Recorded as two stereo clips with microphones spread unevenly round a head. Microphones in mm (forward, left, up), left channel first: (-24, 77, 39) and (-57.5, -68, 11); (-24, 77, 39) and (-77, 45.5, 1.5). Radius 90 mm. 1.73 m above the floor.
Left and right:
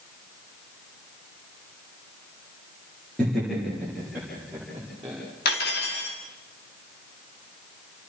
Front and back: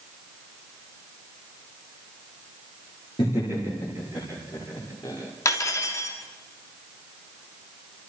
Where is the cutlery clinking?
45° left, 2.5 m.